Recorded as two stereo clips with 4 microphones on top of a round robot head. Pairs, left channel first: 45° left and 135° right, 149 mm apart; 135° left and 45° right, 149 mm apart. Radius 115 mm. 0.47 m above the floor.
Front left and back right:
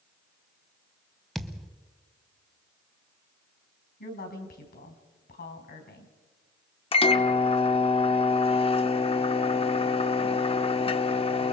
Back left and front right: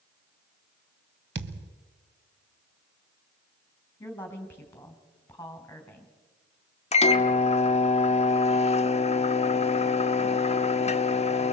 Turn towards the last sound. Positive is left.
turn(degrees=95)